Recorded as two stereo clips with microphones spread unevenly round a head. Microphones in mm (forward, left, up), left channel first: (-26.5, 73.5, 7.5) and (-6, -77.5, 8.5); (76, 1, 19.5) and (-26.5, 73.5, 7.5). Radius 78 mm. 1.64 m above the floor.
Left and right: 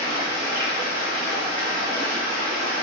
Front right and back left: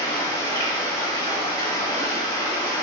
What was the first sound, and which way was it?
Running water, 90° right.